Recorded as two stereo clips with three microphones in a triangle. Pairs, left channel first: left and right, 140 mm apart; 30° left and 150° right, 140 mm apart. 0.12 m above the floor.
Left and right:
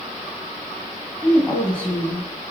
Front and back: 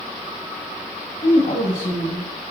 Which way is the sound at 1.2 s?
5° left.